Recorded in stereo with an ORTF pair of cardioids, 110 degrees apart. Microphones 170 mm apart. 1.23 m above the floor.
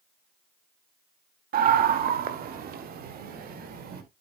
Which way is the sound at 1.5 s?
60° right.